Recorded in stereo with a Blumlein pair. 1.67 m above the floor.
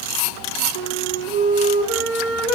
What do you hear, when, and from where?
0.8 s a flute: 60° right, 3 m